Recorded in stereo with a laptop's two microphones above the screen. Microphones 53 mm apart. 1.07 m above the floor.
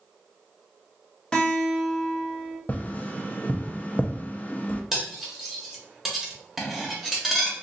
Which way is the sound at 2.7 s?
30° left (ahead or behind).